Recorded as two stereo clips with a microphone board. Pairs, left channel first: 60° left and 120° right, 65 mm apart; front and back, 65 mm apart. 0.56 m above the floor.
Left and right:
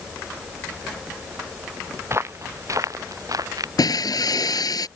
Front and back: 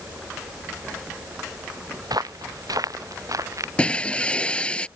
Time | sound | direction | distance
2.0 | footsteps | 170° right | ?
3.8 | breaking glass | 75° left | ?